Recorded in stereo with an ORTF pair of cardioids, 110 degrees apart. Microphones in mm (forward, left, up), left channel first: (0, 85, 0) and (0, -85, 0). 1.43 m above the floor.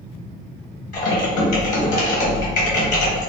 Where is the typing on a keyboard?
55° left, 1.3 m.